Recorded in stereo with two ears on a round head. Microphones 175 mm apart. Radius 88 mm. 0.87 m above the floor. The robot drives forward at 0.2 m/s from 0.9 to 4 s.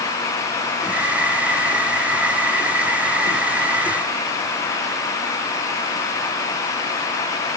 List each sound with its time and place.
Only background noise.